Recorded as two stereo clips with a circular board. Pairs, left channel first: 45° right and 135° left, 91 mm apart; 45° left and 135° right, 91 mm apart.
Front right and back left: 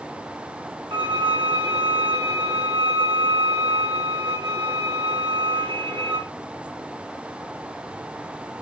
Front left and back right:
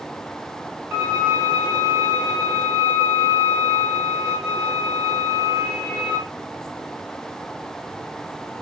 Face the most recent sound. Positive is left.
turn(degrees=160)